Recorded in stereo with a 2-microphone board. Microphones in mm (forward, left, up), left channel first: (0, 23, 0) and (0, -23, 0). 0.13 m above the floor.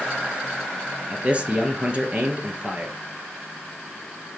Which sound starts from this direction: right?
A man speaking, at 1.1 s.